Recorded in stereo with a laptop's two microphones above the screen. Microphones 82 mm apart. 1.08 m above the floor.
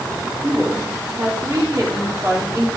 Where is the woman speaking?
45° right (ahead or behind), 2.5 m.